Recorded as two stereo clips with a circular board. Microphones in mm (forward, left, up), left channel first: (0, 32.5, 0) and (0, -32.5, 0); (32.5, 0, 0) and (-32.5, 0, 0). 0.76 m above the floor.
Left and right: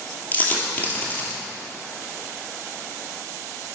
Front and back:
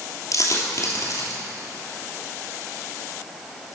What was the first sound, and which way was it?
A dropped coin, 25° left.